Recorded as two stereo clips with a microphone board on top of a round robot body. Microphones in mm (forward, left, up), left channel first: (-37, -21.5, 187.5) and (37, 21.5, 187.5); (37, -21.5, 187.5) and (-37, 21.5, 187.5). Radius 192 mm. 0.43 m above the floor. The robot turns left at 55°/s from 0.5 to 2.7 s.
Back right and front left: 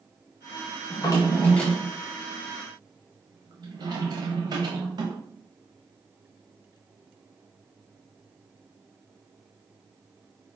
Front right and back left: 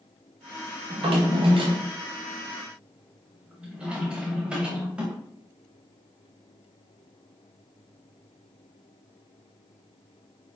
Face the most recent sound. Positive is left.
turn(degrees=70)